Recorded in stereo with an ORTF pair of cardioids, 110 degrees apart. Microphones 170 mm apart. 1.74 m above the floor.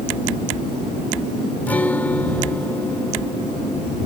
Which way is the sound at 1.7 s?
10° left.